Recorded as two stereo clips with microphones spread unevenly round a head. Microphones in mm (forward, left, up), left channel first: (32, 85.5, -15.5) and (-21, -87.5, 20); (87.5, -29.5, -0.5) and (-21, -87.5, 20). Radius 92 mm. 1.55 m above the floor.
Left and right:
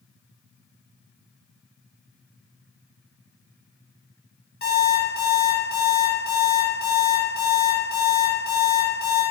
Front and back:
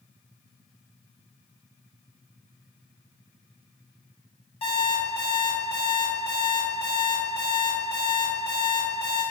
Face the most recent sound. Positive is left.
turn(degrees=75)